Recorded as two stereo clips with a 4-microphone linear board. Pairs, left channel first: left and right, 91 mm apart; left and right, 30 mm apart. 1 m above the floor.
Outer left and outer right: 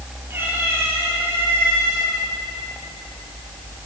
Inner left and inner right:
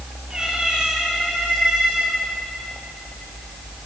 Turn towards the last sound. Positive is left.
turn(degrees=-20)  # may be behind; listen again after turning